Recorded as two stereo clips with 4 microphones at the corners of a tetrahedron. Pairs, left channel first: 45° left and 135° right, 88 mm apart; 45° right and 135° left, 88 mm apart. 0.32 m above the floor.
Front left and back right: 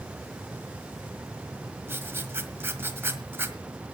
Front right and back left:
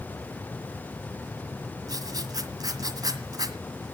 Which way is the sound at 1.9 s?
165° left.